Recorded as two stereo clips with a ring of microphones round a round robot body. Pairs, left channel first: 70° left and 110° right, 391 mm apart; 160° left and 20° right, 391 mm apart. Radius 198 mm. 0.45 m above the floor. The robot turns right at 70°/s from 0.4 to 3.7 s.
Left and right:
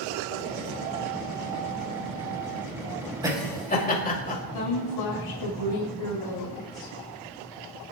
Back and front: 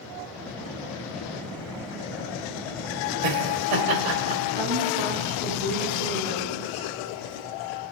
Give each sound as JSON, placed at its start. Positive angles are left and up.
{"t": 3.2, "sound": "laughter", "azimuth_deg": -35, "distance_m": 2.5}
{"t": 4.5, "sound": "a woman speaking", "azimuth_deg": 40, "distance_m": 4.0}